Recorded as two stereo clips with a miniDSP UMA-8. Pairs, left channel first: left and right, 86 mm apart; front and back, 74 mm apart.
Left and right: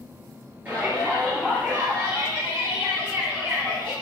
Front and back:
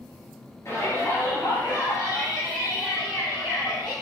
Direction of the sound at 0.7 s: 25° right.